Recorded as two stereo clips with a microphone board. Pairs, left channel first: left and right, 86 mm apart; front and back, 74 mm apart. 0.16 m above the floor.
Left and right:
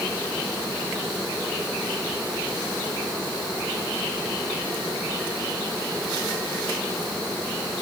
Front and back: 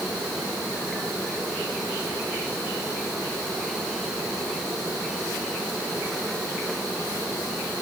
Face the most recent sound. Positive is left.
No sound to turn to.